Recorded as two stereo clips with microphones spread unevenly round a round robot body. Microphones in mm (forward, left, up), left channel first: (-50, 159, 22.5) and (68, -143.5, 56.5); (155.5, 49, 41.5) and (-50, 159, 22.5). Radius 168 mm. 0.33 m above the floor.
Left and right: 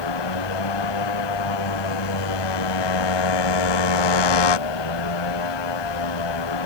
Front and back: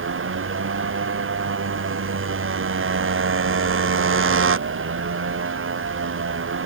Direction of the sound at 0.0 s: 115° left.